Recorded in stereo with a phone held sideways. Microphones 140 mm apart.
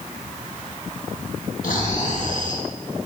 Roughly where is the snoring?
Left.